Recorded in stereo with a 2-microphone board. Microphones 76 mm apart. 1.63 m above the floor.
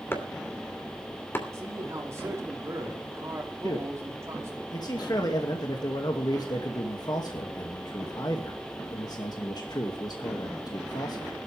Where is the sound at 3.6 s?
60° left (ahead or behind), 2.5 m.